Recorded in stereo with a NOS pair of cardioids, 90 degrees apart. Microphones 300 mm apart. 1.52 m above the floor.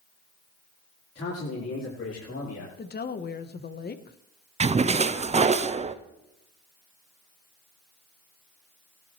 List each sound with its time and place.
1.1 s a man speaking: 50° left, 4.5 m
2.8 s a woman speaking: 35° left, 1.3 m
4.6 s a splash: 25° right, 0.7 m